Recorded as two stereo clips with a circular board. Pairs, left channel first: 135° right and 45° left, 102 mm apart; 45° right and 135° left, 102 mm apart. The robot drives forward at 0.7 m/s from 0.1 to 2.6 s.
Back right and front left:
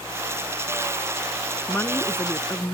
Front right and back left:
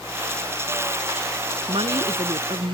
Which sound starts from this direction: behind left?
A woman speaking, at 1.7 s.